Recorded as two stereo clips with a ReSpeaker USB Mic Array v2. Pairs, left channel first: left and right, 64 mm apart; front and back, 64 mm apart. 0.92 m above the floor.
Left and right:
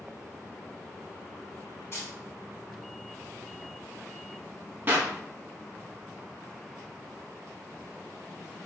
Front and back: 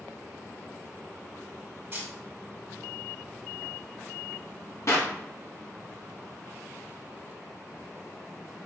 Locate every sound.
1.9 s a camera shutter: 135° left, 2 m
4.9 s a clap: 35° right, 1.0 m